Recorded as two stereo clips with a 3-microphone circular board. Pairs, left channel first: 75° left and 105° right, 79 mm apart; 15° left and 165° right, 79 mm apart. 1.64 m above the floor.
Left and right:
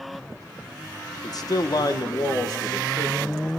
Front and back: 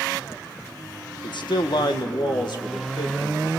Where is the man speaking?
35° left, 1.4 m; by 3.5 s 40° left, 3.5 m.